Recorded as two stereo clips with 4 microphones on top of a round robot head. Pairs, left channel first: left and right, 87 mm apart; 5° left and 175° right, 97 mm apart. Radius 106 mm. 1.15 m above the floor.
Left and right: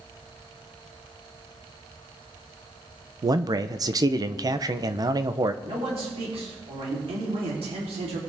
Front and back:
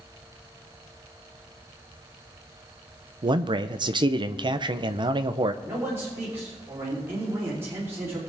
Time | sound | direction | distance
3.2 | a man speaking | 135° right | 0.6 m
5.6 | a man speaking | 105° right | 3.5 m